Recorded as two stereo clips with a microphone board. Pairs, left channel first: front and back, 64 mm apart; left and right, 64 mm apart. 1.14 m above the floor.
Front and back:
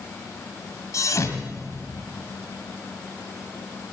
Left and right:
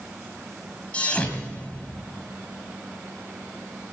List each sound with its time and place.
0.9 s a thud: 25° left, 1.7 m